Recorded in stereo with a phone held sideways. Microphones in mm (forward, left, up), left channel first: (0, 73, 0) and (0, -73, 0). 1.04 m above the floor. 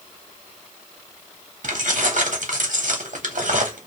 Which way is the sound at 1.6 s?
65° right (ahead or behind).